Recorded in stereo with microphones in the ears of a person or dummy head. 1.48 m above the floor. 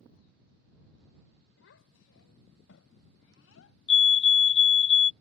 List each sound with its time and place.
1.6 s a child speaking: 75° left (ahead or behind); by 3.8 s 80° left
3.9 s a fire alarm: 25° left (ahead or behind)